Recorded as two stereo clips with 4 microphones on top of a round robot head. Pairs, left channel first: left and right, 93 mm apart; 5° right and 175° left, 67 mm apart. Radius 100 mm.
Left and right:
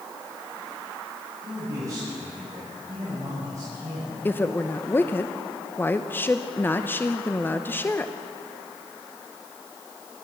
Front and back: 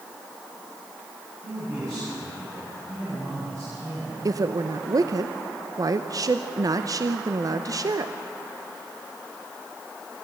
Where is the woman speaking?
155° left, 0.9 m.